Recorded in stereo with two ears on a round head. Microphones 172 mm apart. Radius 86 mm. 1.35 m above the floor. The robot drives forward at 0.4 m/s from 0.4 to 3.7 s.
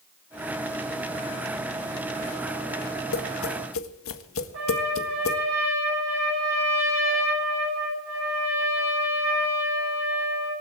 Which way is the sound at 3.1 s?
85° left.